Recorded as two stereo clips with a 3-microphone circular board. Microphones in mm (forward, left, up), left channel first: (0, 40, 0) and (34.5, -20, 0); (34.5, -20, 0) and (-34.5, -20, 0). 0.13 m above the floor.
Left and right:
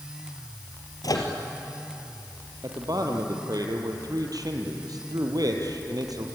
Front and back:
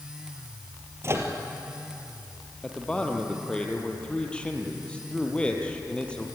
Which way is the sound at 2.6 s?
75° right.